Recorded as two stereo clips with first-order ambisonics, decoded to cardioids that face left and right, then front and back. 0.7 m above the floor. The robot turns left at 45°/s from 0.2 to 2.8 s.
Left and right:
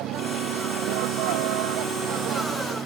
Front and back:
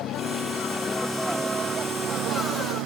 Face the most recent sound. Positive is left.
turn(degrees=-155)